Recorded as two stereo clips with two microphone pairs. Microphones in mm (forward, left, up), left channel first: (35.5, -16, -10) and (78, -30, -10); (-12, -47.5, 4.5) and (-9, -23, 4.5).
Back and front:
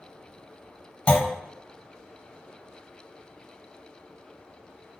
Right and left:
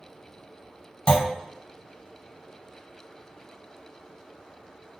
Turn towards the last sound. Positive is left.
turn(degrees=-130)